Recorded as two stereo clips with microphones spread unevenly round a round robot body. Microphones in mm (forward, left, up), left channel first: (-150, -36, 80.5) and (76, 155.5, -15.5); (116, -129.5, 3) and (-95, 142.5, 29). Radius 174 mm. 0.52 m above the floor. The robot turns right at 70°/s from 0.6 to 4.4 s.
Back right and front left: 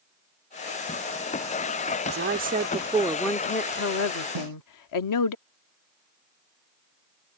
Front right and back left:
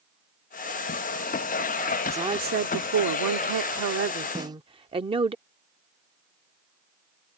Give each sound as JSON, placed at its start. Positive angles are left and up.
{"t": 2.0, "sound": "a woman speaking", "azimuth_deg": 40}
{"t": 4.3, "sound": "a snare drum", "azimuth_deg": 45}